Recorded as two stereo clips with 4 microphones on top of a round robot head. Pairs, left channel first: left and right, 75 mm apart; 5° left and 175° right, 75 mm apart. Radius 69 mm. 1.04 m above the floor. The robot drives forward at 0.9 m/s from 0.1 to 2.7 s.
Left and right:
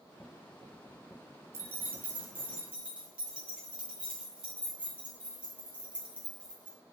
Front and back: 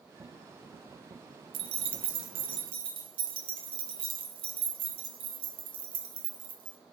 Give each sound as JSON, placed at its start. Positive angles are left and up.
{"t": 1.5, "sound": "keys jangling", "azimuth_deg": -155, "distance_m": 0.8}